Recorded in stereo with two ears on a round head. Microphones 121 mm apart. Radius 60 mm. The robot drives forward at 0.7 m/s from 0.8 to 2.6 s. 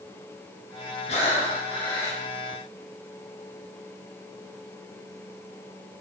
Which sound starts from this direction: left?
Breathing, at 1.1 s.